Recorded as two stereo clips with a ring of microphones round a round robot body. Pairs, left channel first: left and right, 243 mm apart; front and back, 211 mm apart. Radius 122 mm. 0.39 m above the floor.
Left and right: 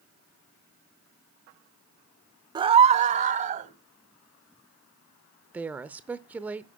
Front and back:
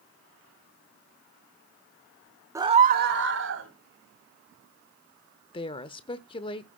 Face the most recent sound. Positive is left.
turn(degrees=-15)